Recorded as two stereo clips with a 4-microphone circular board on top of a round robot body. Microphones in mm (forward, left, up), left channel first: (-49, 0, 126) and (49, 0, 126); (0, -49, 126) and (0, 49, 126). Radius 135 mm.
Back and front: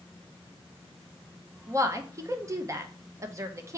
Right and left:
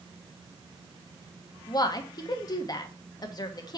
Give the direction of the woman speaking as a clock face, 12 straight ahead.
2 o'clock.